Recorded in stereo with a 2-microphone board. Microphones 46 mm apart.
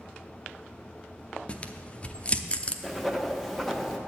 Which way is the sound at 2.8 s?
Centre (ahead or behind).